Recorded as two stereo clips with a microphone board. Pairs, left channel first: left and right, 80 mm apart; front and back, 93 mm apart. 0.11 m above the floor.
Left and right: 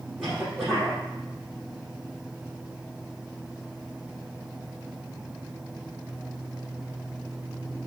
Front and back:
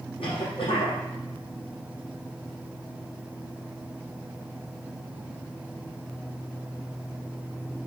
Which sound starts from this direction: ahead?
A cough, at 0.2 s.